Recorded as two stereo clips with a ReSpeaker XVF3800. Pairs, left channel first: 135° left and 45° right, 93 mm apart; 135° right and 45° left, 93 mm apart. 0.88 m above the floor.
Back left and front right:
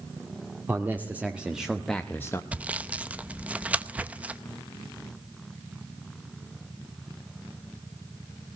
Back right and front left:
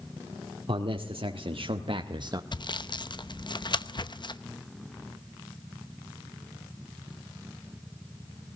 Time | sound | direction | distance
0.7 | a man speaking | 25° left | 2.0 m
2.5 | sawing | 120° right | 0.8 m